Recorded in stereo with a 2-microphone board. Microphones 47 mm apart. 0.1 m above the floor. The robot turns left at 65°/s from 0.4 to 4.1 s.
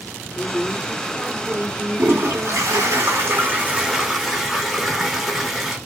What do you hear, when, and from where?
0.3 s a woman speaking: 55° left, 7 m; by 2.9 s 110° right, 7 m
2.0 s a toilet flushing: 45° right, 6 m; by 5.8 s 175° left, 6 m